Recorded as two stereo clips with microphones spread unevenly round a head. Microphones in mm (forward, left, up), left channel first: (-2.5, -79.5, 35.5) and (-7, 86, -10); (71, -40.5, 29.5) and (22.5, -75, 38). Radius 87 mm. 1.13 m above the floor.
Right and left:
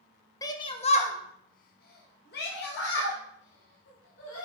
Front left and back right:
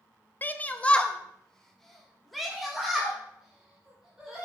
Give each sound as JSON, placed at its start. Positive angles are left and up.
{"t": 0.4, "sound": "a shout", "azimuth_deg": -10, "distance_m": 0.8}